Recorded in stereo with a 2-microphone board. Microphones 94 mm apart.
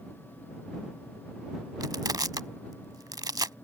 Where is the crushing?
45° right (ahead or behind).